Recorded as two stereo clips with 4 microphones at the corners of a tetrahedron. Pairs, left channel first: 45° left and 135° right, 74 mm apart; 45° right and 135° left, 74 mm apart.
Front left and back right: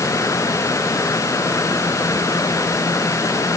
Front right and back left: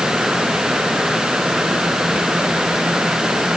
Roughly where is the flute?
I don't hear a flute.